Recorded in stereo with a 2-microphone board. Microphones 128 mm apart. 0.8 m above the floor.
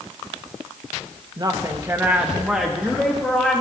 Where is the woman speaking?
35° right (ahead or behind), 0.8 m; by 3.6 s 10° left (ahead or behind), 1.7 m.